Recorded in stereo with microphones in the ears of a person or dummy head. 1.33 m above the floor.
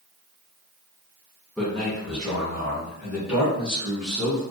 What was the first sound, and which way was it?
A man speaking, centre (ahead or behind).